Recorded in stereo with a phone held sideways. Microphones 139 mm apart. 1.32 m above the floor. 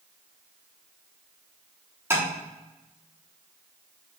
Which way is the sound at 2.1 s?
15° right (ahead or behind).